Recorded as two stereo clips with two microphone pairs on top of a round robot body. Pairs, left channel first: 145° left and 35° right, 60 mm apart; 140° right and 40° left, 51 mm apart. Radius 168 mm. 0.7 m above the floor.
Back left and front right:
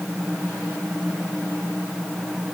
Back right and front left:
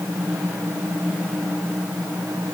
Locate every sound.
Only background noise.